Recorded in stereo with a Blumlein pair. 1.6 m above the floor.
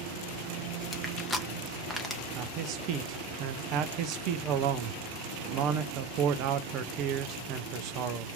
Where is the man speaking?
40° right, 0.5 m.